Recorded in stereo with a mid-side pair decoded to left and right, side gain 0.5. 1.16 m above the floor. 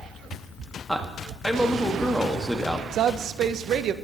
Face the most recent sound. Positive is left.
turn(degrees=-60)